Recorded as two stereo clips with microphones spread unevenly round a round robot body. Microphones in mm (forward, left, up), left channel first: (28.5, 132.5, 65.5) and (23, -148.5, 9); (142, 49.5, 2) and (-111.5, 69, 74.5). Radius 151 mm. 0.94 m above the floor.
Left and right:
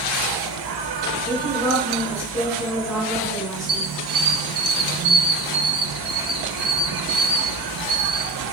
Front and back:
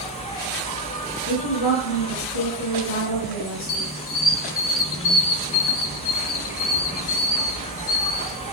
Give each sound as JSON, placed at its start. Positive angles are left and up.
{"t": 0.0, "sound": "an insect", "azimuth_deg": -80, "distance_m": 1.1}
{"t": 1.3, "sound": "a woman speaking", "azimuth_deg": -10, "distance_m": 5.0}
{"t": 3.7, "sound": "a squeak", "azimuth_deg": -15, "distance_m": 0.7}